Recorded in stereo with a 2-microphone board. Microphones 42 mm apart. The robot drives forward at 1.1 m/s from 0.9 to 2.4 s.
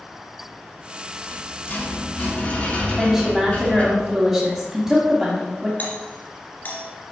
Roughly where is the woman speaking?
Centre.